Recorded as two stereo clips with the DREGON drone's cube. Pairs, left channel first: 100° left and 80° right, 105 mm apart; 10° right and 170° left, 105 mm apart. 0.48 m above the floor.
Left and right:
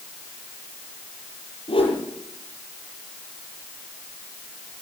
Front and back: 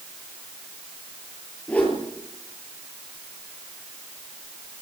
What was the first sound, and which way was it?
A whoosh, 65° left.